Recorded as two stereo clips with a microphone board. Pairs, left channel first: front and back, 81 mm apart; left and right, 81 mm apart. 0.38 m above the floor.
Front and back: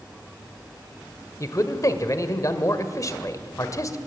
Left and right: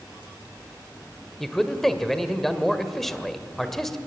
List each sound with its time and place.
1.4 s a man speaking: 5° left, 1.5 m